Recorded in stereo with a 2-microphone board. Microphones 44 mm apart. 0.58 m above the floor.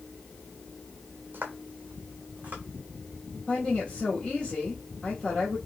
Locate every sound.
1.3 s footsteps: 50° right (ahead or behind), 1.1 m; by 2.6 s 35° right (ahead or behind), 1.6 m
3.5 s a woman speaking: 20° left (ahead or behind), 1.2 m